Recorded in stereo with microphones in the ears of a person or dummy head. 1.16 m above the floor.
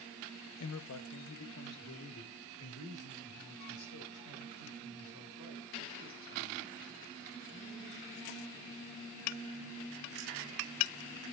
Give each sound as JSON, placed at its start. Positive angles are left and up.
{"t": 0.6, "sound": "a man speaking", "side_deg": 75, "distance_m": 0.8}